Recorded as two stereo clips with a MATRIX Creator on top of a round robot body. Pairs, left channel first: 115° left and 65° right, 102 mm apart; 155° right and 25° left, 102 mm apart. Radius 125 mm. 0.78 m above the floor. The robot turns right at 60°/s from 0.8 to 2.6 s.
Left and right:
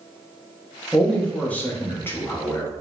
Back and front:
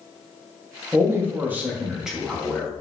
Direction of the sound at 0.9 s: 30° left.